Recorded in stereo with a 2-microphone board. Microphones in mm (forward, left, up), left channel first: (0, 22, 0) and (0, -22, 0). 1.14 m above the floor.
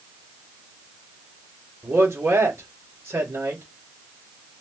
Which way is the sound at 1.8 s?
75° right (ahead or behind).